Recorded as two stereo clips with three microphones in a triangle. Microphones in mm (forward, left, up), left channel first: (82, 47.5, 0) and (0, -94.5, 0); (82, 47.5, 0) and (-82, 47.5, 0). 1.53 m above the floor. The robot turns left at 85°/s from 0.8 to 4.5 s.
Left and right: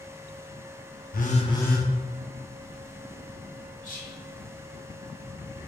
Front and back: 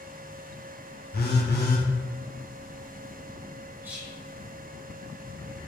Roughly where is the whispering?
Left.